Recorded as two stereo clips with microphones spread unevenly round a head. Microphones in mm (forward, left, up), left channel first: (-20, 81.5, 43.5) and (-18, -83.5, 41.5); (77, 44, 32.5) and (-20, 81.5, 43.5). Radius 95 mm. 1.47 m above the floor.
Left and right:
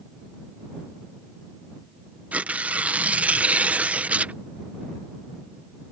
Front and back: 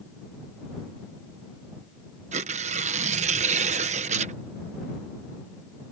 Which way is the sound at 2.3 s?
170° right.